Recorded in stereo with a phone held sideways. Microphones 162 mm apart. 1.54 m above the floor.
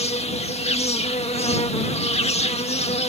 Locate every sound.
0.0 s an insect: 40° left (ahead or behind)